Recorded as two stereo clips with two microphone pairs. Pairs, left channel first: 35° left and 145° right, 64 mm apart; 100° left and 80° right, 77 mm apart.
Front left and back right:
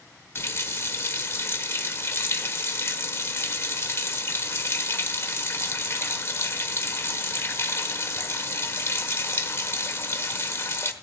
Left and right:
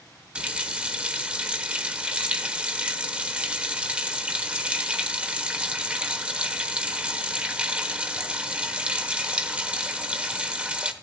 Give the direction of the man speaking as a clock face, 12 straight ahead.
No man speaking in this recording.